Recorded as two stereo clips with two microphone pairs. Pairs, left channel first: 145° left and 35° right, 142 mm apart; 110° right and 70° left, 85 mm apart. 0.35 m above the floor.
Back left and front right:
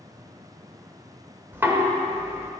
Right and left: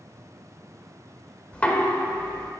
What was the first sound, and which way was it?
Knocking, 75° right.